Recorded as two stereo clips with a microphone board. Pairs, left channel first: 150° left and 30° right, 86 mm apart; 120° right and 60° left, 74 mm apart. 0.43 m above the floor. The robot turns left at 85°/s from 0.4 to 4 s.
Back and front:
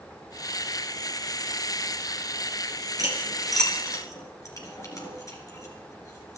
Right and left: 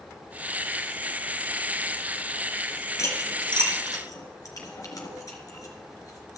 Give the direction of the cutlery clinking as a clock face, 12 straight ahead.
2 o'clock.